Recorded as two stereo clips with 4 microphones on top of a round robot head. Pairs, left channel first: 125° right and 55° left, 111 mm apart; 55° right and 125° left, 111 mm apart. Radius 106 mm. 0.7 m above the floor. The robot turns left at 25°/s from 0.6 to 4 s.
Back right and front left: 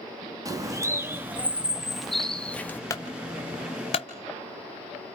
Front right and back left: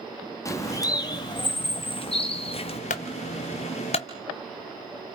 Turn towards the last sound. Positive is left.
turn(degrees=-90)